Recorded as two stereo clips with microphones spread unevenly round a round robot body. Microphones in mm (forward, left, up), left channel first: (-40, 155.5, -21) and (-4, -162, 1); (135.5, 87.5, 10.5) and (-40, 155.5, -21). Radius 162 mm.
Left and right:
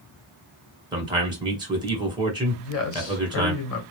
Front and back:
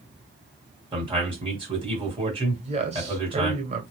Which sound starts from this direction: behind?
A man speaking, at 0.9 s.